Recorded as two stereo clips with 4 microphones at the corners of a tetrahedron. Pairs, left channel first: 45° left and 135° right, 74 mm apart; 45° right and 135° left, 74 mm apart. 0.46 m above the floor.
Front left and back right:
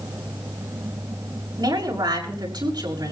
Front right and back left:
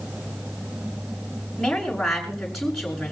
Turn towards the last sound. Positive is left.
turn(degrees=-130)